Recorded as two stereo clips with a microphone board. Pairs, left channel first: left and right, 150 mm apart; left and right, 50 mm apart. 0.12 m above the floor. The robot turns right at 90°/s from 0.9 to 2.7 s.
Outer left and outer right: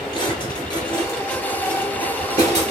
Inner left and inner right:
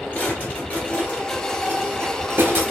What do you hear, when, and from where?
0.1 s a drawer: 35° left (ahead or behind), 1.1 m; by 2.7 s 45° right (ahead or behind), 1.1 m